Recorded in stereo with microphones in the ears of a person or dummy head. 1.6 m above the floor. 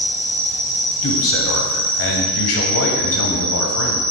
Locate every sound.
0.0 s an insect: 35° right (ahead or behind), 1.0 m
1.0 s a man speaking: 70° left (ahead or behind), 0.7 m